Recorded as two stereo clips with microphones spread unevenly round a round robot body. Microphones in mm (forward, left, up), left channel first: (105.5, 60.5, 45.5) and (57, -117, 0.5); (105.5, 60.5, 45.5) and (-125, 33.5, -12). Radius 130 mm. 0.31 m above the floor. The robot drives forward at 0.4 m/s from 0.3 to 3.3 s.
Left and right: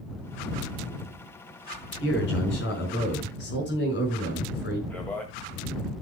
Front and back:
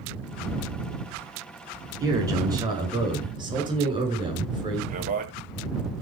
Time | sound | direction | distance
2.0 | a man speaking | 115° left | 5 m
4.9 | a man speaking | 170° left | 1.9 m